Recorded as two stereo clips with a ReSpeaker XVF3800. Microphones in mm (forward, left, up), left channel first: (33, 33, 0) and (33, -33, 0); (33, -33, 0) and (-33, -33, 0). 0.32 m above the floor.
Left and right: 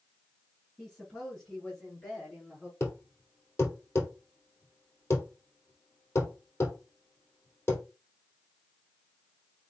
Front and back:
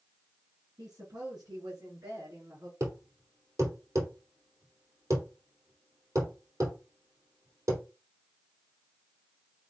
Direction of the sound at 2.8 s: 140° left.